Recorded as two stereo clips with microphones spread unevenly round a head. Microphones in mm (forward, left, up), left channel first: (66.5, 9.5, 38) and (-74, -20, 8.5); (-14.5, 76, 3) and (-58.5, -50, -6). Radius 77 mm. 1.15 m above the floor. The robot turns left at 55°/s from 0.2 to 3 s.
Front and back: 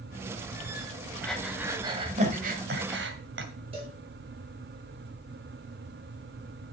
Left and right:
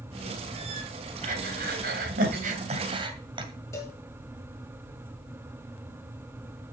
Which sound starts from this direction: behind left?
A cowbell, at 3.7 s.